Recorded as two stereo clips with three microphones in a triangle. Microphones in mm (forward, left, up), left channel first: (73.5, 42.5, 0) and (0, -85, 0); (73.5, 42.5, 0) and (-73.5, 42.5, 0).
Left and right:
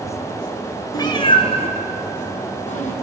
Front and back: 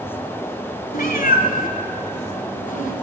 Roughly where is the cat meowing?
Ahead.